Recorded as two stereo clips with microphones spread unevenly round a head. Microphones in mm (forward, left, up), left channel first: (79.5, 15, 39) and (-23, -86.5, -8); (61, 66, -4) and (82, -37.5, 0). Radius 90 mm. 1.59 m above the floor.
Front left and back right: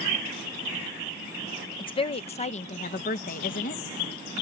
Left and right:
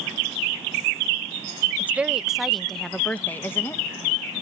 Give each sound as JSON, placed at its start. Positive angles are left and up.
{"t": 1.8, "sound": "a woman speaking", "azimuth_deg": -5}